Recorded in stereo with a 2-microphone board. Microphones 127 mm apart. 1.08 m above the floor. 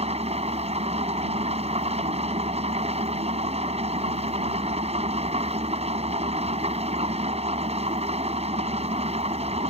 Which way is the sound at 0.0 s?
55° right (ahead or behind).